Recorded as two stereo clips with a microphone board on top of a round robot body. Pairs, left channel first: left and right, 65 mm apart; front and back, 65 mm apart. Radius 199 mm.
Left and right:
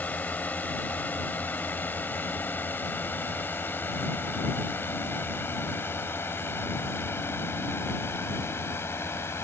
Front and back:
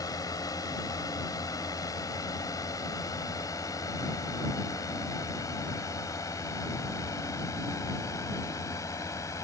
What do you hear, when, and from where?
0.0 s a drone: 25° left; by 9.4 s 40° left